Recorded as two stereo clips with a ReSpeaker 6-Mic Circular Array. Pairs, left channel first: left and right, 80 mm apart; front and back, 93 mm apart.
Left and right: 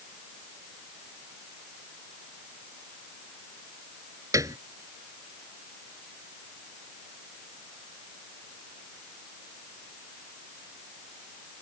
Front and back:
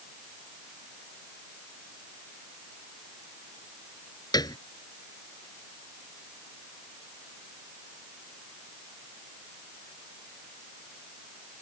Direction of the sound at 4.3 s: 45° right.